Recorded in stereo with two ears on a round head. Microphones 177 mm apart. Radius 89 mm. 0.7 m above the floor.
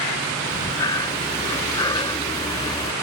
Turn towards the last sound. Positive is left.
turn(degrees=20)  # may be behind; listen again after turning